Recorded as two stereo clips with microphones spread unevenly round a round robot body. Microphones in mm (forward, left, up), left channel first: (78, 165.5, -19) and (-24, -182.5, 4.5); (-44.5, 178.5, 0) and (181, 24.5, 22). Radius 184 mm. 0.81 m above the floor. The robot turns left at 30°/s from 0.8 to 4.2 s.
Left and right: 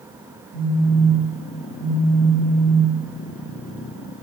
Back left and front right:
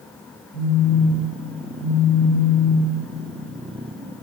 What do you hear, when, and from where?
0.5 s a phone buzzing: 145° right, 1.5 m; by 2.9 s 150° left, 1.5 m